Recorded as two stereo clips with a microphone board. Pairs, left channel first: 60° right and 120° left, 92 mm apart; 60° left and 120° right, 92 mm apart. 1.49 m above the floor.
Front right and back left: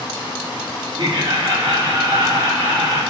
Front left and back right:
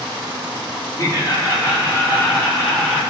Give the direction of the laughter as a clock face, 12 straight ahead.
8 o'clock.